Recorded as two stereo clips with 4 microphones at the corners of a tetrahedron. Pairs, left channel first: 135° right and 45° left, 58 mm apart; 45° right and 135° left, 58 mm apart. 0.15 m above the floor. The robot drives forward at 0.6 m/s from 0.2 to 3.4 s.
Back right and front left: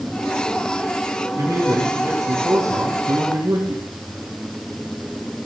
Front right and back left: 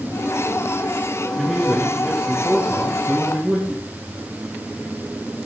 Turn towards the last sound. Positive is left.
turn(degrees=65)